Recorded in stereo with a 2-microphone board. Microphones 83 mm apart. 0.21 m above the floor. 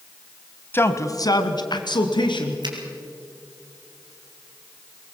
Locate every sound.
0.7 s a man speaking: 25° left (ahead or behind), 1.1 m; by 2.5 s 70° left (ahead or behind), 3 m
2.6 s a finger snap: 60° right (ahead or behind), 3.5 m